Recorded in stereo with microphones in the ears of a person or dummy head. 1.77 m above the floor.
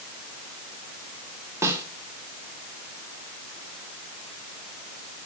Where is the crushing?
I don't hear crushing.